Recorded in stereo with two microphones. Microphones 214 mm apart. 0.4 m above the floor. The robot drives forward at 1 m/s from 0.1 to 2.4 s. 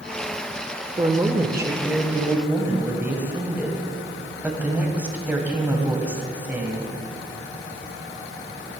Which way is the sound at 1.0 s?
20° right (ahead or behind).